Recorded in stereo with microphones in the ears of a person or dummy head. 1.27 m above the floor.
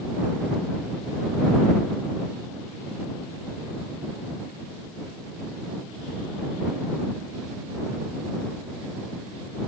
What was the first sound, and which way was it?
Only background noise.